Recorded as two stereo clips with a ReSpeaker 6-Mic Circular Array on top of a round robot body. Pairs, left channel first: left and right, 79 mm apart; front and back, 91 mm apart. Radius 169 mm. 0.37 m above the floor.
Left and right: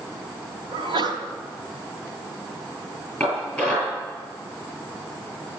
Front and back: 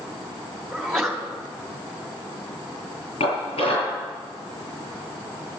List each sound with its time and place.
0.7 s a sneeze: 90° right, 3 m
3.2 s dishes clattering: 10° left, 8.5 m